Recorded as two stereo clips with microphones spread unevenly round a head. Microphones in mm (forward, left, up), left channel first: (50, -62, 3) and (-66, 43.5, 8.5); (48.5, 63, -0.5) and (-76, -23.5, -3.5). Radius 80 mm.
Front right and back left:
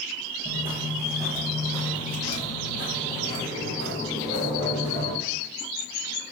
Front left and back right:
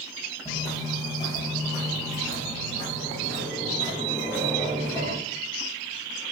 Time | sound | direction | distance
0.5 | footsteps | 85° left | 1.1 m